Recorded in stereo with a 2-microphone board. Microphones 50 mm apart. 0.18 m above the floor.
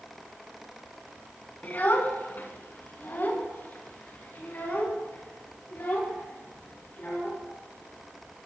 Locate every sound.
1.6 s a child speaking: 40° left (ahead or behind), 1.4 m